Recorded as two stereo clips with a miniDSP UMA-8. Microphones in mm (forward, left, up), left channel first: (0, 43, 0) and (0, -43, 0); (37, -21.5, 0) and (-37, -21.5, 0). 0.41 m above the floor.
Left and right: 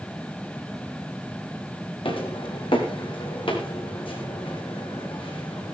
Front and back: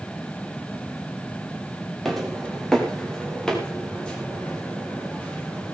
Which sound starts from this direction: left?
Footsteps, at 2.0 s.